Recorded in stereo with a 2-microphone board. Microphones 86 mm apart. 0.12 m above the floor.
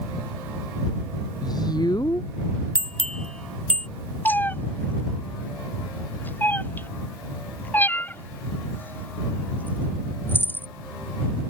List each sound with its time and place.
1.4 s a woman speaking: 50° left (ahead or behind)
2.8 s a bell: 10° left (ahead or behind)
4.2 s a cat meowing: 20° left (ahead or behind)